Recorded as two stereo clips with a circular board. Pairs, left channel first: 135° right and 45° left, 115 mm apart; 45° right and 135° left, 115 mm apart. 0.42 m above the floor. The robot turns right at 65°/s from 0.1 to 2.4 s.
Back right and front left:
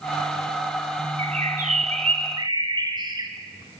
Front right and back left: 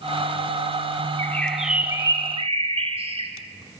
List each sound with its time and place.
1.2 s a bird: 20° left, 2.5 m; by 3.3 s 100° left, 2.5 m